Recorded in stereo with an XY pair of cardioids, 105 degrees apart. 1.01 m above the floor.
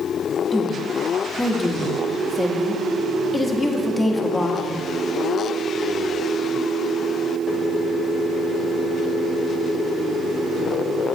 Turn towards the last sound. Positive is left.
turn(degrees=15)